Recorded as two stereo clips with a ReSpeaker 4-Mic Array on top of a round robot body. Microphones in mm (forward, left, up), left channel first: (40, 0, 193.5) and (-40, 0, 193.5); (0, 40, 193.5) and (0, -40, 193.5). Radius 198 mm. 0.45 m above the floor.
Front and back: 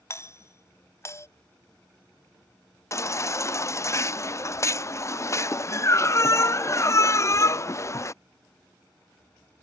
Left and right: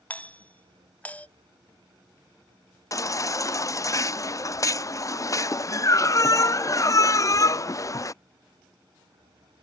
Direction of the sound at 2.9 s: 50° left.